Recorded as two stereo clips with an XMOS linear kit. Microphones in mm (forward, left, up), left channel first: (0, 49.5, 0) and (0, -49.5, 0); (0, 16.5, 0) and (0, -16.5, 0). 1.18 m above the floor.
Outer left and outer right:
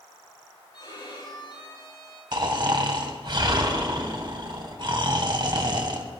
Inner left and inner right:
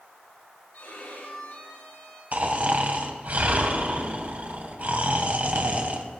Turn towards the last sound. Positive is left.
turn(degrees=-50)  # may be behind; listen again after turning